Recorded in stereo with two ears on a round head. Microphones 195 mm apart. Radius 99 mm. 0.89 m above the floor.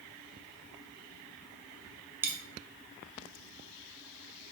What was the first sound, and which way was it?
A dropped coin, 10° right (ahead or behind).